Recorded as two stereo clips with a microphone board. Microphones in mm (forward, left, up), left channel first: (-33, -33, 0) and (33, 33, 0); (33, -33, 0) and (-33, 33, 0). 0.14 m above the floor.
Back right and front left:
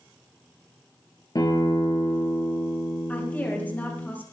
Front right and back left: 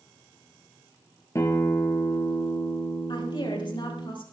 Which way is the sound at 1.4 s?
95° right.